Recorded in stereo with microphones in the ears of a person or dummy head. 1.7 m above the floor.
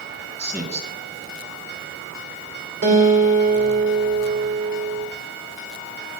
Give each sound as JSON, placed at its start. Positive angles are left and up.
{"t": 0.4, "sound": "a man speaking", "side_deg": -10, "distance_m": 1.9}
{"t": 2.8, "sound": "a guitar", "side_deg": -60, "distance_m": 2.5}